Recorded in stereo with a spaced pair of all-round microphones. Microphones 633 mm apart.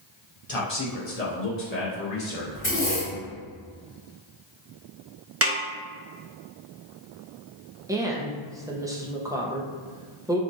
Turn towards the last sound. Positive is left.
turn(degrees=-5)  # may be behind; listen again after turning